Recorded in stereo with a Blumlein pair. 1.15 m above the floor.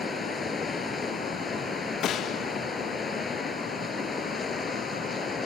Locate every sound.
0.0 s running water: 10° left
2.0 s a gunshot: 25° left